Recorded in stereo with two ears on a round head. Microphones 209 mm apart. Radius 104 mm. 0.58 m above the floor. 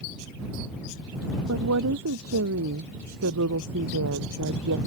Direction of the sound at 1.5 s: 70° right (ahead or behind).